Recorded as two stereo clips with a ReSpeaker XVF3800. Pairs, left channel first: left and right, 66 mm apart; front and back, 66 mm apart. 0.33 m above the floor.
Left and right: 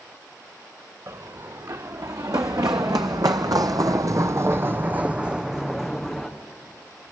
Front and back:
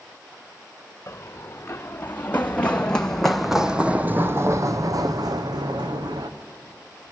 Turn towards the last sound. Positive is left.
turn(degrees=180)